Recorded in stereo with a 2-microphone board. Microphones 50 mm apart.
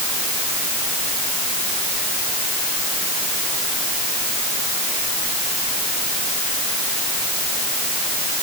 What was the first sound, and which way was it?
Only background noise.